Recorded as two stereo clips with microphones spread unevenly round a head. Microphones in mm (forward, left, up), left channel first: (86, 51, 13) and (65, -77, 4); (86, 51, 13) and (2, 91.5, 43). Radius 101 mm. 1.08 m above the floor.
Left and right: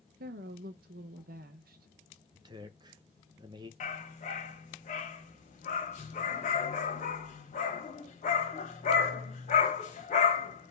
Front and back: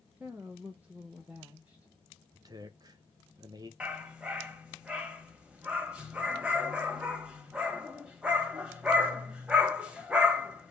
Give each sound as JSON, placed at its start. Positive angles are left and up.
{"t": 0.2, "sound": "a woman speaking", "azimuth_deg": -125, "distance_m": 0.5}
{"t": 2.3, "sound": "a man speaking", "azimuth_deg": -145, "distance_m": 0.8}
{"t": 3.8, "sound": "a dog barking", "azimuth_deg": 85, "distance_m": 1.5}